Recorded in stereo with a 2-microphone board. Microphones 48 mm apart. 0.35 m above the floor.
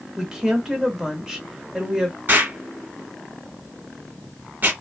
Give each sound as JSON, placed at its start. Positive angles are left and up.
{"t": 0.2, "sound": "a woman speaking", "side_deg": -15, "distance_m": 0.8}
{"t": 2.3, "sound": "an explosion", "side_deg": -45, "distance_m": 1.2}